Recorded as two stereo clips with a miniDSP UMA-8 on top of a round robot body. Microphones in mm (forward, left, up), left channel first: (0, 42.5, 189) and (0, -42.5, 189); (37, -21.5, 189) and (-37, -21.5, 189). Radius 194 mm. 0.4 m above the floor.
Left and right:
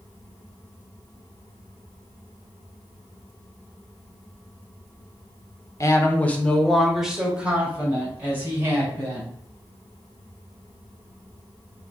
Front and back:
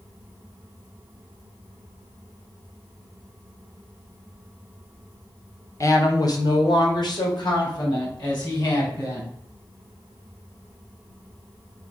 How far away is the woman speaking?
About 1.5 m.